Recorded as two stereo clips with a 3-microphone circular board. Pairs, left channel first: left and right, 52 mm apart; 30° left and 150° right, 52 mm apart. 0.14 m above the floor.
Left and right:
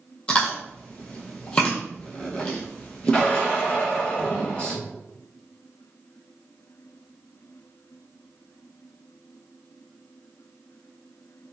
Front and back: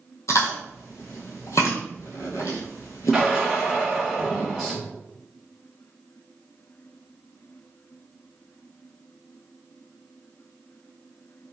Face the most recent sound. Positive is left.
turn(degrees=120)